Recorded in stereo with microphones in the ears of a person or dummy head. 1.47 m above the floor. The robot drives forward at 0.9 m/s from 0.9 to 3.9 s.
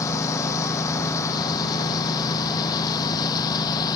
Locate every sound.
0.0 s a lawn mower: 20° left (ahead or behind); by 4.0 s 25° left (ahead or behind)